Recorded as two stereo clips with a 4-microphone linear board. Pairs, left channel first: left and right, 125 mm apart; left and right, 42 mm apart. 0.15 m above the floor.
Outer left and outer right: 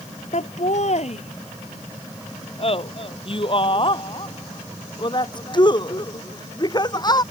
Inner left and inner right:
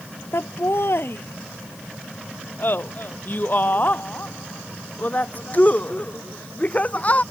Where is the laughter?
60° left (ahead or behind); by 7.2 s 30° left (ahead or behind).